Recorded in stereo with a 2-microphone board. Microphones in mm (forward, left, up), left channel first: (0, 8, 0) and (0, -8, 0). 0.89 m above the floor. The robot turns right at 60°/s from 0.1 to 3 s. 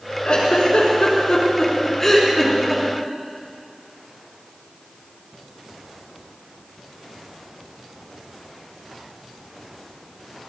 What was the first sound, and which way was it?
A giggle, 55° left (ahead or behind).